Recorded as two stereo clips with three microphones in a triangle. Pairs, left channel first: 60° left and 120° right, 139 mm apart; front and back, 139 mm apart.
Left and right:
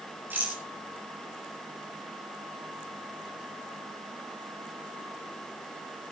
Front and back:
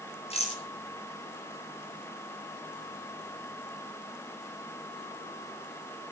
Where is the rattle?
45° right, 7 m.